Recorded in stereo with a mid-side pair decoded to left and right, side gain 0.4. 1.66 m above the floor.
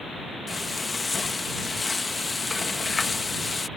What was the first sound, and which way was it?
Frying, 30° left.